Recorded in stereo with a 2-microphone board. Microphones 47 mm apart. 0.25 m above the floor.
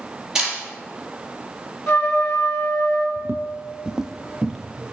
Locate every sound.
0.3 s a camera shutter: 10° right (ahead or behind), 5 m
1.9 s a trumpet: 60° left (ahead or behind), 3 m
3.2 s footsteps: 60° right (ahead or behind), 0.5 m; by 4.9 s 5° left (ahead or behind), 1.5 m